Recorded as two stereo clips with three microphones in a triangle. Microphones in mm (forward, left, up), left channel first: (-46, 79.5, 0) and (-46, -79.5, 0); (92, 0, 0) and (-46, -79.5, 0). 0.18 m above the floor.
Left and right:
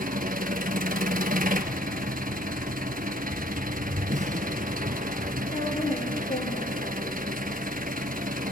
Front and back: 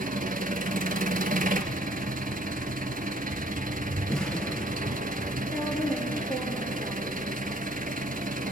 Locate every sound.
0.0 s an engine running: 120° right, 1.2 m
4.1 s an explosion: 55° right, 1.4 m
5.5 s a woman speaking: 115° left, 6 m